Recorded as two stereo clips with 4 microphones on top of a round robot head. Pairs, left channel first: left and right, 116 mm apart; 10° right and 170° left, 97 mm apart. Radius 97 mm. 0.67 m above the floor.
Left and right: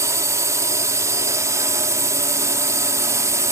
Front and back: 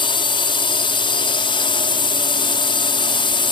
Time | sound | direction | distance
0.0 | a drone | 30° right | ?